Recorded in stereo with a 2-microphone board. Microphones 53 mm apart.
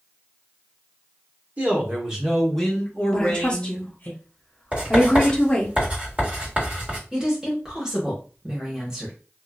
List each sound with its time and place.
1.6 s a man speaking: 35° right (ahead or behind), 1.0 m; by 4.1 s 35° left (ahead or behind), 1.6 m
3.1 s a woman speaking: 20° left (ahead or behind), 0.7 m
4.7 s writing: 30° right (ahead or behind), 1.8 m
7.1 s a woman speaking: 10° right (ahead or behind), 1.1 m